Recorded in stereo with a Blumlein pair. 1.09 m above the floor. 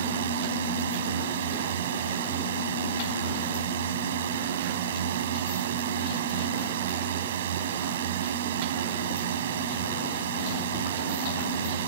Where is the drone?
60° right.